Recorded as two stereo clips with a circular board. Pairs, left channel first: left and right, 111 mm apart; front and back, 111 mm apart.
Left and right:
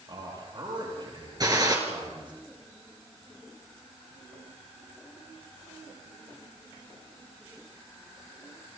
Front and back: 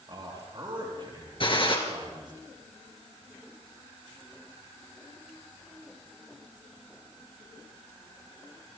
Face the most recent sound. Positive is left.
turn(degrees=-35)